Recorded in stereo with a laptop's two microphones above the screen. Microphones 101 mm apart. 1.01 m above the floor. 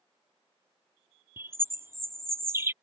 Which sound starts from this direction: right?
A bird, at 1.4 s.